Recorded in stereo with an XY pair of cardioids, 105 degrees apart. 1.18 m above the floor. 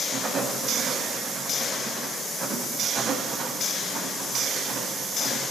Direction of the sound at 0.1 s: 45° right.